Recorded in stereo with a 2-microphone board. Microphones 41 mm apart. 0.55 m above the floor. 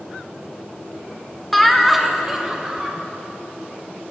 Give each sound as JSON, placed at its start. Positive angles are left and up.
{"t": 1.5, "sound": "laughter", "side_deg": 5, "distance_m": 0.8}